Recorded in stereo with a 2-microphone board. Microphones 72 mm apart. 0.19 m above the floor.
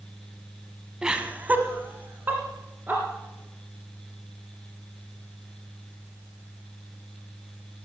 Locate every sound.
1.0 s laughter: 10° right (ahead or behind), 1.3 m; by 3.0 s 25° right (ahead or behind), 3 m